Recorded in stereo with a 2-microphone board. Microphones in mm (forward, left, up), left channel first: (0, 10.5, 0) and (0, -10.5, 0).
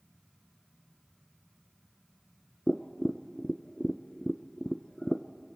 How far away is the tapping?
About 0.7 m.